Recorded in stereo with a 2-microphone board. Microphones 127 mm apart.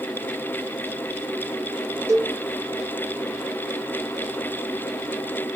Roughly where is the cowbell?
Right.